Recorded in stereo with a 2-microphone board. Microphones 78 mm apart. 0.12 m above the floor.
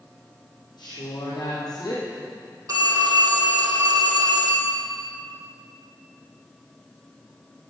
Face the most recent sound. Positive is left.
turn(degrees=-50)  # may be behind; listen again after turning